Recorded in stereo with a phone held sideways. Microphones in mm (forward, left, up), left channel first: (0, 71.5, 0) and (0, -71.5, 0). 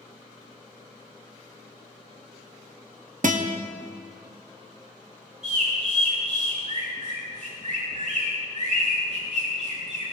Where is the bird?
70° right (ahead or behind), 6 m.